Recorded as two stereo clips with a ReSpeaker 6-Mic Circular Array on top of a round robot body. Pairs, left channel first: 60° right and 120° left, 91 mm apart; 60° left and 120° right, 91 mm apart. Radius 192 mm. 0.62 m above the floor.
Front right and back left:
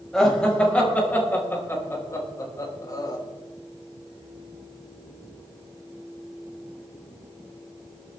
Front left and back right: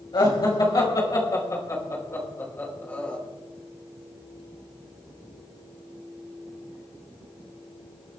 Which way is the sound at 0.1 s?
25° left.